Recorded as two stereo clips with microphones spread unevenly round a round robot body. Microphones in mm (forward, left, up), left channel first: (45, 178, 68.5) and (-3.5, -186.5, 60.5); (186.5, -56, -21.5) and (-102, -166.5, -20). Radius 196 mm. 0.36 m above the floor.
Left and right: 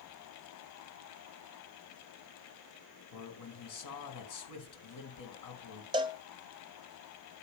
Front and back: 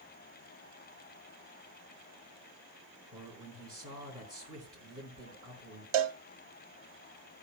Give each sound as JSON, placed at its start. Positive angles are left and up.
{"t": 3.1, "sound": "a man speaking", "azimuth_deg": 120, "distance_m": 4.5}
{"t": 5.9, "sound": "a cowbell", "azimuth_deg": -175, "distance_m": 0.7}